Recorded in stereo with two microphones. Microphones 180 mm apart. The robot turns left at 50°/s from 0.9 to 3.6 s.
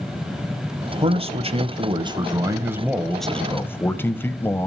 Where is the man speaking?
70° right, 1.1 m; by 4.7 s 160° left, 1.1 m.